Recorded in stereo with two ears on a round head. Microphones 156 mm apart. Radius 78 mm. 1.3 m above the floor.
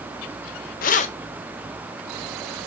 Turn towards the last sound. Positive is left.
turn(degrees=15)  # may be behind; listen again after turning